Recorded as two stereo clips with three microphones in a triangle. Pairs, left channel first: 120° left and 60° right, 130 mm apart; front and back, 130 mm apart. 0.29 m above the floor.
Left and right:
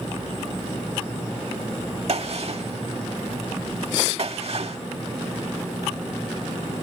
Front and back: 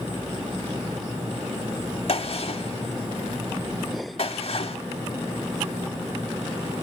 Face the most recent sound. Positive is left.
turn(degrees=-35)